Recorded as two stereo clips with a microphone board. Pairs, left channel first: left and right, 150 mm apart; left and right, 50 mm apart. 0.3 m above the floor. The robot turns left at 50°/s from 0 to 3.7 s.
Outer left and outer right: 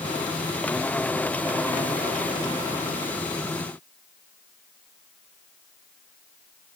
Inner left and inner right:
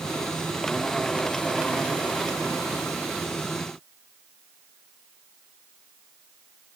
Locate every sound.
Only background noise.